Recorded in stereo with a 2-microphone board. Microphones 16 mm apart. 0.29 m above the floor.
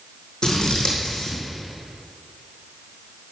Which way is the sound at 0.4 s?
70° left (ahead or behind).